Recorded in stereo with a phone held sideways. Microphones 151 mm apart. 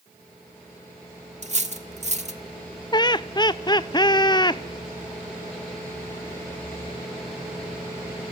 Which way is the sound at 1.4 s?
45° right (ahead or behind).